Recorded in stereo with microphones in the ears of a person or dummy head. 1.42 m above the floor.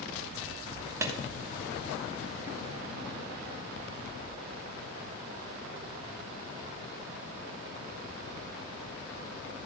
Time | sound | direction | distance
1.0 | a clap | 15° right (ahead or behind) | 1.2 m